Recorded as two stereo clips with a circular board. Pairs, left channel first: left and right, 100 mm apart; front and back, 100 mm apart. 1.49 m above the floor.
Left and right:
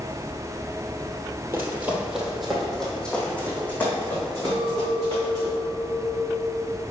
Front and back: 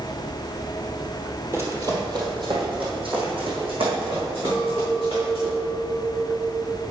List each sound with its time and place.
1.5 s running footsteps: 135° right, 1.8 m; by 5.5 s 155° left, 6 m
4.5 s a clink: 125° right, 1.6 m